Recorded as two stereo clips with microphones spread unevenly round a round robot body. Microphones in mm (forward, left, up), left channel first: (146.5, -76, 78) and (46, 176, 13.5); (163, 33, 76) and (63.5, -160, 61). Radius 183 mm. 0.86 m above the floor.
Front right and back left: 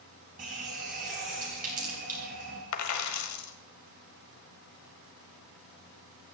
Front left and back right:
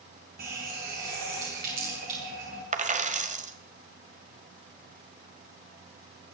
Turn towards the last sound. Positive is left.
turn(degrees=-60)